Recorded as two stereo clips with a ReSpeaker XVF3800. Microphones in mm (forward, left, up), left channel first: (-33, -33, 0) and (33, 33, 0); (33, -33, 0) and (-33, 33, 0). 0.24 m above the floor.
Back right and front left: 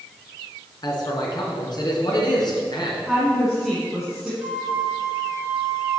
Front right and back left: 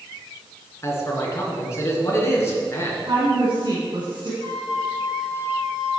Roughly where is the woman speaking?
Behind left.